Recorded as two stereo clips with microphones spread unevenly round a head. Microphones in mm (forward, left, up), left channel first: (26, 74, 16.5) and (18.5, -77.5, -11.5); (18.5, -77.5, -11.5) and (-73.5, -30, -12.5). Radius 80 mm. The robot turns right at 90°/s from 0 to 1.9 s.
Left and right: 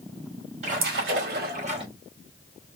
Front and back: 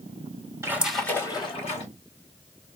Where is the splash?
145° right, 2.5 m; by 1.9 s 35° right, 2.5 m.